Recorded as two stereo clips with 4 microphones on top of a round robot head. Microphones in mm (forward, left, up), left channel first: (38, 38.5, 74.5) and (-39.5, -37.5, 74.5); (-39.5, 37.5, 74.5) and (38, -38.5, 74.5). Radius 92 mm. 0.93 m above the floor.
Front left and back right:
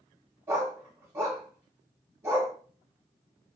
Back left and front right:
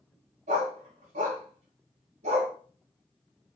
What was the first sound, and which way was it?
A dog barking, 65° right.